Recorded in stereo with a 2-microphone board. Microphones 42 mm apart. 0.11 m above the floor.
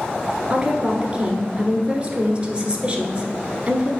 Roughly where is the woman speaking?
Right.